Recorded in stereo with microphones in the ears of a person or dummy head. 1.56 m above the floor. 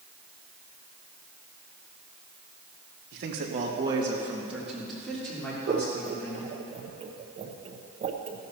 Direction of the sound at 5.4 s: 35° right (ahead or behind).